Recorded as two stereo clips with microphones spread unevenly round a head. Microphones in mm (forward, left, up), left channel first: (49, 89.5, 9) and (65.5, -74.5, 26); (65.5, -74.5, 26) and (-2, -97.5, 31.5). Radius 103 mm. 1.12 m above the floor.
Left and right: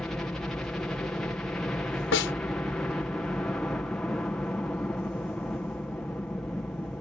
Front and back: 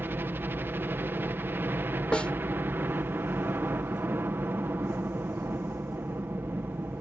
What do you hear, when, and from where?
0.0 s a helicopter: 170° left
2.1 s a snare drum: 105° left